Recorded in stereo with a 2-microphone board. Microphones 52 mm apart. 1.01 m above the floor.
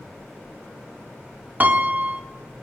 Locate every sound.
1.6 s a piano: 35° right (ahead or behind), 1.6 m